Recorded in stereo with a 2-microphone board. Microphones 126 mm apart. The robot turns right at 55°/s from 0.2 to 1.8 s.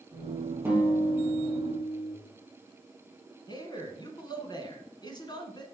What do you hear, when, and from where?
0.7 s a guitar: 20° right, 2 m; by 2.1 s 45° left, 2 m
3.5 s a man speaking: 35° left (ahead or behind), 1.6 m